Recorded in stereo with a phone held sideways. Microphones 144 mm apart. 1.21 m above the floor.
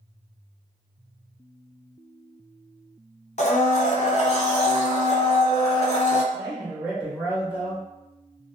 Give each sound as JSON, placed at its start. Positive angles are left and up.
{"t": 3.4, "sound": "a blender", "side_deg": 50, "distance_m": 0.6}
{"t": 6.3, "sound": "a man speaking", "side_deg": -10, "distance_m": 0.8}